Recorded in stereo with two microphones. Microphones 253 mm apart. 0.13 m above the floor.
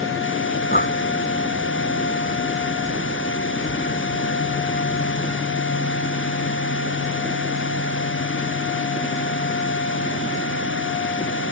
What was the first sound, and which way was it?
Breathing, 40° left (ahead or behind).